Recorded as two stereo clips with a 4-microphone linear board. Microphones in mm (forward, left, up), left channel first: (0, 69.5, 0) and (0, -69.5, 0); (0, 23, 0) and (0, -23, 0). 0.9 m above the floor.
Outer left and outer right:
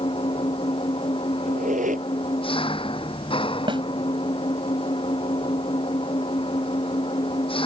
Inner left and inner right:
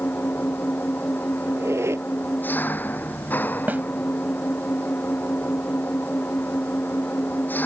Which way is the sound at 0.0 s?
45° left (ahead or behind).